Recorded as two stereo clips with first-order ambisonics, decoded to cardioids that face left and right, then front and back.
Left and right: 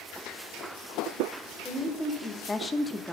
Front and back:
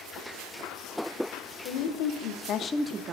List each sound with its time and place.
1.6 s a woman speaking: 10° left, 1.8 m; by 3.1 s 165° left, 0.8 m